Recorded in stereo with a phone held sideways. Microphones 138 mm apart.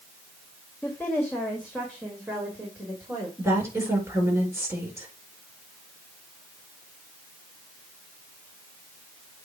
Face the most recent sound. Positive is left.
turn(degrees=-20)  # may be behind; listen again after turning